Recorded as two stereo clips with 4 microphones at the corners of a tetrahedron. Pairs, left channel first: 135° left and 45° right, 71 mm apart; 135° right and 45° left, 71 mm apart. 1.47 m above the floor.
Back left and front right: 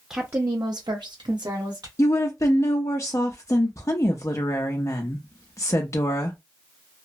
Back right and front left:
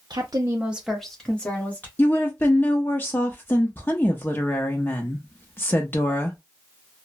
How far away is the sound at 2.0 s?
About 0.5 m.